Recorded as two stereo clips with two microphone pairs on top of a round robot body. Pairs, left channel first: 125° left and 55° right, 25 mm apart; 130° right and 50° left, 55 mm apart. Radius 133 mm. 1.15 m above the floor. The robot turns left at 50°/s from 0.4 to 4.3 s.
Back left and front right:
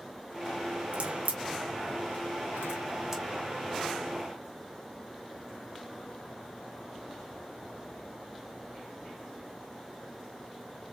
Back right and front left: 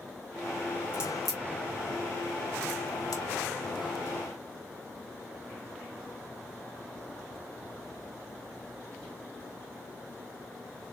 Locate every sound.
0.9 s a crack: 20° right, 0.9 m; by 3.2 s 135° right, 0.9 m